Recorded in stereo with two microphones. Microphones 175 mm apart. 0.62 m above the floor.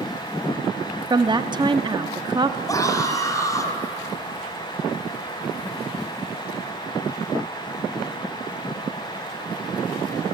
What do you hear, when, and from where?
1.1 s a woman speaking: 25° right (ahead or behind), 0.9 m
2.7 s a scream: 20° left (ahead or behind), 3.5 m